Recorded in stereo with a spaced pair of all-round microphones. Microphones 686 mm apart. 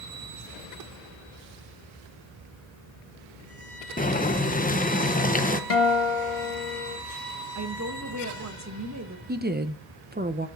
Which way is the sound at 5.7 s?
50° left (ahead or behind).